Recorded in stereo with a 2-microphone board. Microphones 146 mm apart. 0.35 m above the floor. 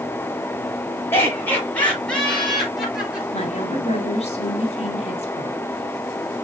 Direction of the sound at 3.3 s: 45° left (ahead or behind).